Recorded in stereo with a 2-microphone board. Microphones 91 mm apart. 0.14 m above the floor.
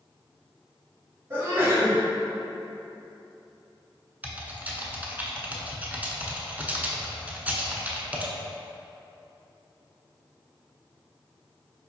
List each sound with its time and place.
1.3 s a sneeze: 30° right (ahead or behind), 1.9 m
4.2 s typing on a keyboard: 20° right (ahead or behind), 0.5 m